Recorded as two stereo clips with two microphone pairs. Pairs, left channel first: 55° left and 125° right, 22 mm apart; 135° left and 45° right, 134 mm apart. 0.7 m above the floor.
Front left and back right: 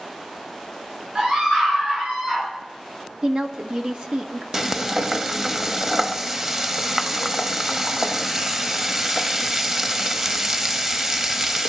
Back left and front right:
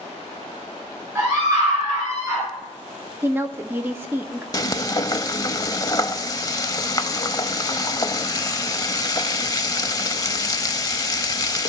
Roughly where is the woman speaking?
Right.